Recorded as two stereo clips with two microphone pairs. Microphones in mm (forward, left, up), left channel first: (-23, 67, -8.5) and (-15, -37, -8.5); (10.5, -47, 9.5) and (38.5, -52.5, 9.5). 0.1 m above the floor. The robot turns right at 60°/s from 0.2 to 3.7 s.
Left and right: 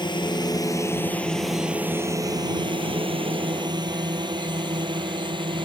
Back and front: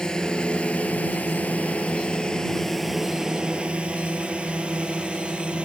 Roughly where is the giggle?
I don't hear a giggle.